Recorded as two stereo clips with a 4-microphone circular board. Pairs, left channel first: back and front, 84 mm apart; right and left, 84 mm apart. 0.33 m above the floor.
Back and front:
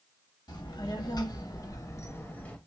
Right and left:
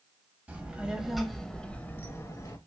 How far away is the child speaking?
About 1.0 m.